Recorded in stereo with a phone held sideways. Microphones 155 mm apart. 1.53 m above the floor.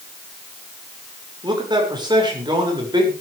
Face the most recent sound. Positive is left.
turn(degrees=-30)  # may be behind; listen again after turning